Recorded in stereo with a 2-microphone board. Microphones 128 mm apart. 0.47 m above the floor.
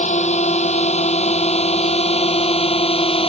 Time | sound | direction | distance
0.0 | a drone | 65° left (ahead or behind) | ?